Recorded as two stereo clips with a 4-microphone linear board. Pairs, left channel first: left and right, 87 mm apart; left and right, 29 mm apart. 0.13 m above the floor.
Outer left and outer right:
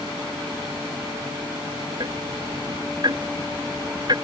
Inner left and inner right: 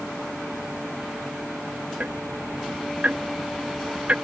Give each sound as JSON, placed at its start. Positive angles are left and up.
{"t": 2.0, "sound": "ticking", "side_deg": -55}